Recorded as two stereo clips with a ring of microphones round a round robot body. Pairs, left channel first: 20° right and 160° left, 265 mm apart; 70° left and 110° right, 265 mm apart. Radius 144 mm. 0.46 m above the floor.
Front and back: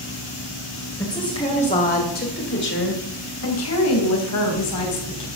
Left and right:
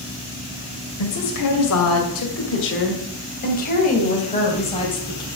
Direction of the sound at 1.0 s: 55° left.